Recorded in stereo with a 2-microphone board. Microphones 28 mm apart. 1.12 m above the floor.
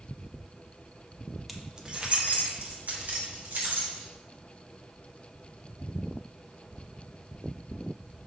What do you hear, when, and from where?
1.5 s keys jangling: centre (ahead or behind), 0.8 m; by 4.0 s 70° right (ahead or behind), 3 m